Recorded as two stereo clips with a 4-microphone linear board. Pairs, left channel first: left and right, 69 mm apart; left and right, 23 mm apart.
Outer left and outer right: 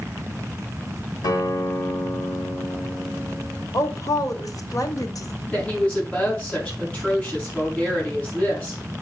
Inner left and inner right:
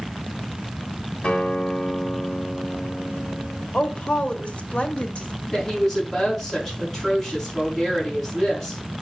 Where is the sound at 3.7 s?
60° left (ahead or behind), 1.6 m.